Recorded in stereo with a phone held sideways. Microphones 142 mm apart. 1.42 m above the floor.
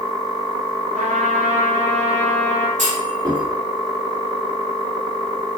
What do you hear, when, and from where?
0.9 s a trumpet: 55° right (ahead or behind), 1.2 m
2.8 s a clunk: 55° right (ahead or behind), 2.5 m